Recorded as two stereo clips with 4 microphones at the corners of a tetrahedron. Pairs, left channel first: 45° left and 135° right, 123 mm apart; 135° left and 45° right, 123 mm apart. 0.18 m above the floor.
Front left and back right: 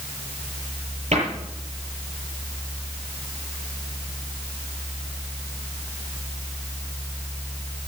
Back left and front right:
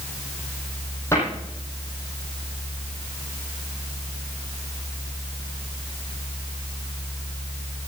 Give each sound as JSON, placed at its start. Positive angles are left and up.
{"t": 1.1, "sound": "a cupboard door", "azimuth_deg": -155, "distance_m": 6.5}